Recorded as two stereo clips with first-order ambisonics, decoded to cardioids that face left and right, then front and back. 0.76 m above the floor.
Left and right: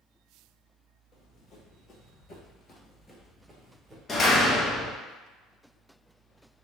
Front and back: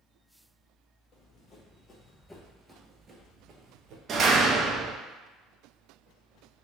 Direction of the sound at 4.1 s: 140° left.